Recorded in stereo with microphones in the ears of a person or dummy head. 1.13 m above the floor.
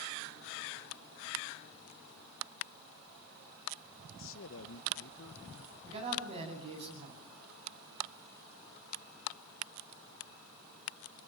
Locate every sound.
4.2 s a man speaking: 65° left (ahead or behind), 1.0 m
5.8 s a man speaking: 30° right (ahead or behind), 8.5 m